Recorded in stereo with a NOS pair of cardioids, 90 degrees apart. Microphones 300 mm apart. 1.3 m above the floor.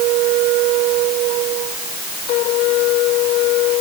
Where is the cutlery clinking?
No cutlery clinking in this recording.